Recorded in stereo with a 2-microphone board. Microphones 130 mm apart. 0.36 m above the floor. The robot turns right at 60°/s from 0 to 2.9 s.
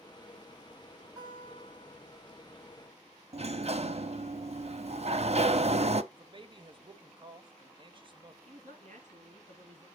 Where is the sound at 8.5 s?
70° right (ahead or behind), 3.5 m.